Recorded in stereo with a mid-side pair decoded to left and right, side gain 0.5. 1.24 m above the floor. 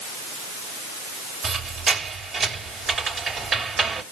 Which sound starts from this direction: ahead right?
A squeak, at 1.4 s.